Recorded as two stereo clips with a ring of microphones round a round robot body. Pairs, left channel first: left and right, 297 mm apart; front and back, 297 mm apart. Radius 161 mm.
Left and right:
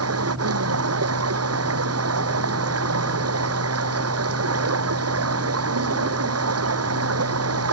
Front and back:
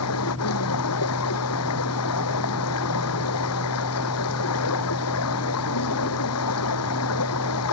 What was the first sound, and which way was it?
Running water, 50° right.